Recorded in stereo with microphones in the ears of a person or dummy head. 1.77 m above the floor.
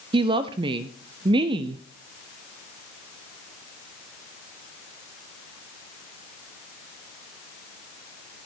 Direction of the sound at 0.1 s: 25° right (ahead or behind).